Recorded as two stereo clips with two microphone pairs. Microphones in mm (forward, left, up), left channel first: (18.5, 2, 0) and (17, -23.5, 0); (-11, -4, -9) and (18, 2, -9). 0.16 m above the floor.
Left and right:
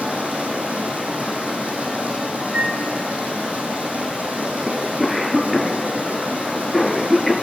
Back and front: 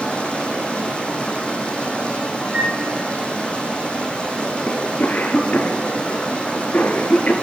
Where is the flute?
40° right, 2 m.